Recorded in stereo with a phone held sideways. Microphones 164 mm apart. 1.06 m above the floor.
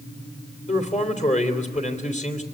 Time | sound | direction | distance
0.7 | a man speaking | 50° left (ahead or behind) | 3 m